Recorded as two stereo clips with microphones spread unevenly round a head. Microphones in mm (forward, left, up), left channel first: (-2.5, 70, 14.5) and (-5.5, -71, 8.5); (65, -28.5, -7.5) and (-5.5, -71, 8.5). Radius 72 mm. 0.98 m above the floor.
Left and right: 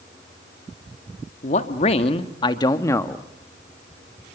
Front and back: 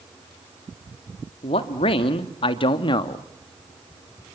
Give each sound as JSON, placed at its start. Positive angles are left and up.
{"t": 1.4, "sound": "a man speaking", "azimuth_deg": 45, "distance_m": 1.9}